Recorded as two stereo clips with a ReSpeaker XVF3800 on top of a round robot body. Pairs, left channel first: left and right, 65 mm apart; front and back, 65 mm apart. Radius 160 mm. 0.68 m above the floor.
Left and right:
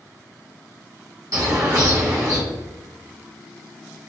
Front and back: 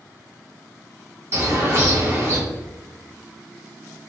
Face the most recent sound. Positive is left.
turn(degrees=-130)